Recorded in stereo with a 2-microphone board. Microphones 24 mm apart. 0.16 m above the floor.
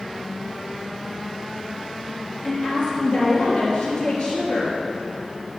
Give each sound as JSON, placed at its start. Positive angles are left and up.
{"t": 2.4, "sound": "a woman speaking", "side_deg": 60, "distance_m": 3.5}